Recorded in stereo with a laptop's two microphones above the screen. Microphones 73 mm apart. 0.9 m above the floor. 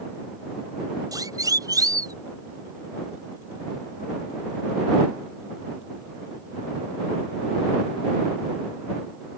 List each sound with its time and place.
1.1 s a siren: 55° right (ahead or behind)